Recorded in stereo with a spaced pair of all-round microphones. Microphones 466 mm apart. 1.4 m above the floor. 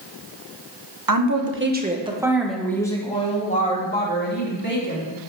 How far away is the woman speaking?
About 1.2 m.